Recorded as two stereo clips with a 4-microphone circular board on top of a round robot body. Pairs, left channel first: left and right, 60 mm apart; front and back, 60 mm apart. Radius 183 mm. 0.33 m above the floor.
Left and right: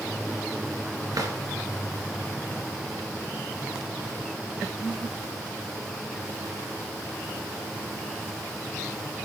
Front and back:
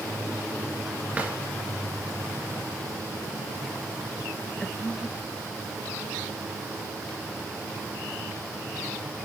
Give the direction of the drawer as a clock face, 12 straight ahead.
4 o'clock.